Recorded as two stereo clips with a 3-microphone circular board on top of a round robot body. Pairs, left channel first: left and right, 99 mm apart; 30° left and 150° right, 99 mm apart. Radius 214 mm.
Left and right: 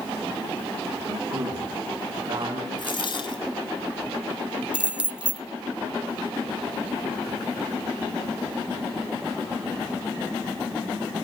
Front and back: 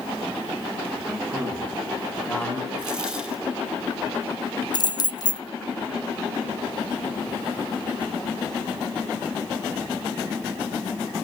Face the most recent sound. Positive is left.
turn(degrees=-15)